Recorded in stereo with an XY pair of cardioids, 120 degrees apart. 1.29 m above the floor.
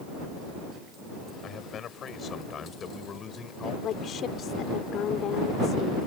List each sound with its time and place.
1.4 s a man speaking: 50° left; by 3.7 s 35° left
3.8 s a woman speaking: 55° left